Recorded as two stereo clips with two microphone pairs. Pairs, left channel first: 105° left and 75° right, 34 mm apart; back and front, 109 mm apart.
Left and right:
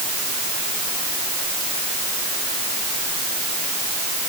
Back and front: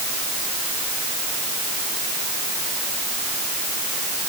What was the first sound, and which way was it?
Only background noise.